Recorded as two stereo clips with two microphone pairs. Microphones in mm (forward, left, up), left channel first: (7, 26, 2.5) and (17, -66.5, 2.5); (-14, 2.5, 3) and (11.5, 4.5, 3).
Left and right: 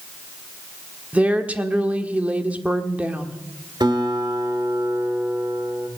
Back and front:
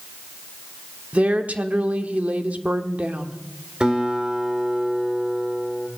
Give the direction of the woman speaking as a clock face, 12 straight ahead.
12 o'clock.